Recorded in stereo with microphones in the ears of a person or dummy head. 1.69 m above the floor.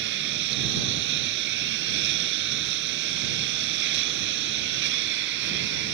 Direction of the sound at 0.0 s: 65° right (ahead or behind).